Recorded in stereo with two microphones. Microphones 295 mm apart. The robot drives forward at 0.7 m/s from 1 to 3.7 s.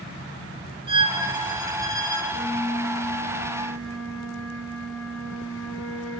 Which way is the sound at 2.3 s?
30° left (ahead or behind).